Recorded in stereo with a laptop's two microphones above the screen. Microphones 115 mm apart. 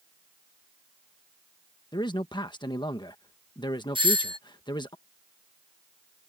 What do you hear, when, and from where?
1.9 s a man speaking: 40° left (ahead or behind)
4.0 s a doorbell: 45° right (ahead or behind)